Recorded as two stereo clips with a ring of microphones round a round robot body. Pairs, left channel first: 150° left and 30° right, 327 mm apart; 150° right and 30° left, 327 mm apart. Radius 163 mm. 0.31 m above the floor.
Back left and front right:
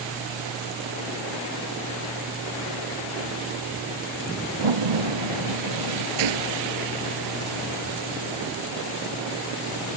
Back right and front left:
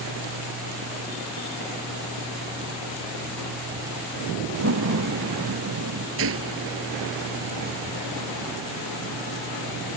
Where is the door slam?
20° right.